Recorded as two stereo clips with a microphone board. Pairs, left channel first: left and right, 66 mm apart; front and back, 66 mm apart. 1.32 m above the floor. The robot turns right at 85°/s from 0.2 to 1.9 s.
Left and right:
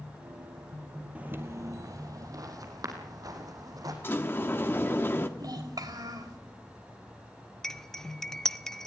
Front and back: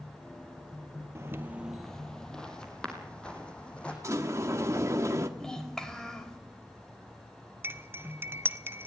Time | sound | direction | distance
1.1 | footsteps | 155° right | 1.9 m
4.0 | a sliding door | 145° left | 1.5 m
5.4 | a child speaking | 80° right | 4 m
7.6 | cutlery clinking | 165° left | 0.7 m